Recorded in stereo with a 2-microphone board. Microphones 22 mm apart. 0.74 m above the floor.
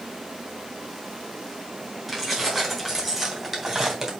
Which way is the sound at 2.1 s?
5° left (ahead or behind).